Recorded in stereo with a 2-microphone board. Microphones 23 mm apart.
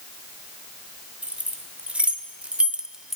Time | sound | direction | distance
1.2 | keys jangling | 85° right | 2.5 m